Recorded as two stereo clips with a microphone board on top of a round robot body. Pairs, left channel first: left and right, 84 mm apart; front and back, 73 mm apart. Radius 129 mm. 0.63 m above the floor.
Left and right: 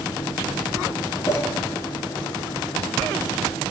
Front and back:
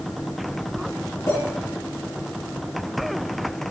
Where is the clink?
45° left, 4.5 m.